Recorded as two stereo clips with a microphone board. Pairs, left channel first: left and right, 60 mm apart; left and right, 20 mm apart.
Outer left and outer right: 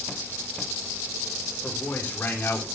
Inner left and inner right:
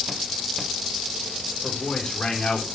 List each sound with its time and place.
1.6 s a man speaking: 30° left (ahead or behind), 4 m; by 2.7 s 40° left (ahead or behind), 3 m